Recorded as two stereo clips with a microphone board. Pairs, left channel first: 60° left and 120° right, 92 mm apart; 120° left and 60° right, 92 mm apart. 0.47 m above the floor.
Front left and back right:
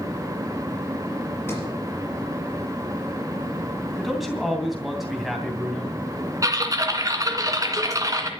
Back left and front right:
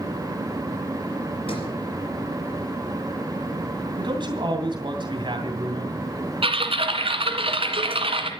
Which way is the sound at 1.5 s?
125° left.